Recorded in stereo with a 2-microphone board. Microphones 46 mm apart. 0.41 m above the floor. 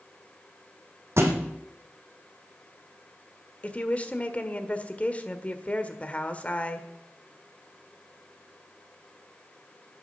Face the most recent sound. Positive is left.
turn(degrees=30)  # may be behind; listen again after turning